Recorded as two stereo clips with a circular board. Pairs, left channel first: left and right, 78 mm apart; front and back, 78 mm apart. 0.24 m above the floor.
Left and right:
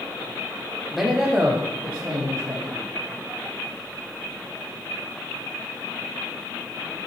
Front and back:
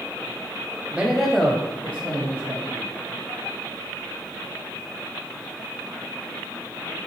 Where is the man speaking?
Straight behind, 0.9 m; by 2.8 s 50° right, 2 m.